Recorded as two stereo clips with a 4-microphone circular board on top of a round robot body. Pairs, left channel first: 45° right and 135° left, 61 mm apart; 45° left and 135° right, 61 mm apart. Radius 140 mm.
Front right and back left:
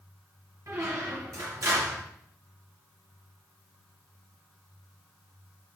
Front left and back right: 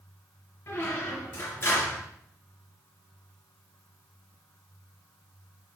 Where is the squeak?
95° left, 3.5 m.